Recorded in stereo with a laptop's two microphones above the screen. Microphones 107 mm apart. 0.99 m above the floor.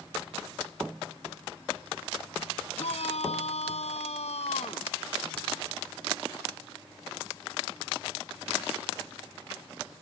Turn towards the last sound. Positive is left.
turn(degrees=85)